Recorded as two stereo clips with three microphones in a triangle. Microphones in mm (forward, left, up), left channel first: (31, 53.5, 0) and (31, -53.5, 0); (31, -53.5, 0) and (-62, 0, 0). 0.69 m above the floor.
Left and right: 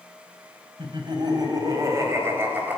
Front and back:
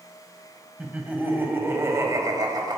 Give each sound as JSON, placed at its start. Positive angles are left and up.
{"t": 0.8, "sound": "laughter", "azimuth_deg": -130, "distance_m": 3.5}